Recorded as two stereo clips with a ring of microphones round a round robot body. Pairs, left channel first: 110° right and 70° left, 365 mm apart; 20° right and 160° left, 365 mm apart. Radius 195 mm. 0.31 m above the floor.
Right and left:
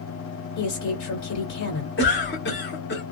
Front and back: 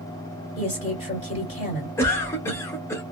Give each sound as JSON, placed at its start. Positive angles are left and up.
{"t": 0.6, "sound": "a woman speaking", "azimuth_deg": -90, "distance_m": 2.0}
{"t": 2.0, "sound": "a cough", "azimuth_deg": -100, "distance_m": 1.2}